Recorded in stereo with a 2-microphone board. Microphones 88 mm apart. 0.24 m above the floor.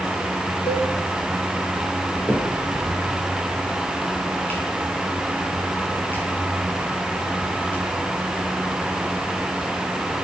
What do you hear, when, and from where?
0.7 s a cowbell: 80° left, 4 m
2.3 s a finger snap: 20° left (ahead or behind), 5.5 m